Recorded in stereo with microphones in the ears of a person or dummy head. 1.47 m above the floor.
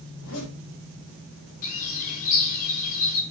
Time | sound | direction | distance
0.1 | a zipper | 80° left | 4.5 m
1.6 | a bird | 35° left (ahead or behind) | 0.9 m